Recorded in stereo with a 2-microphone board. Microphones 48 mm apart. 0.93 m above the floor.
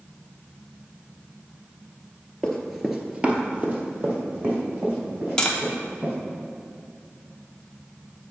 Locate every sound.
2.4 s running footsteps: 15° left (ahead or behind), 1.0 m; by 6.1 s 35° right (ahead or behind), 4.5 m
5.4 s tapping: 15° left (ahead or behind), 0.8 m